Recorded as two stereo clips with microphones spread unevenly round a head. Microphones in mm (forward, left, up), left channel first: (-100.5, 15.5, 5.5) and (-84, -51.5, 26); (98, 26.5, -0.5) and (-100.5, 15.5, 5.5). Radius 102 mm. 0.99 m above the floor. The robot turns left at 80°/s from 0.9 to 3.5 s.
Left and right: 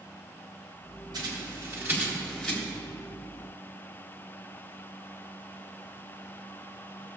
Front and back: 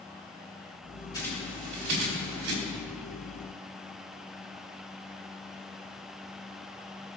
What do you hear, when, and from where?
1.1 s a bird: 70° right, 3 m; by 2.5 s straight behind, 3 m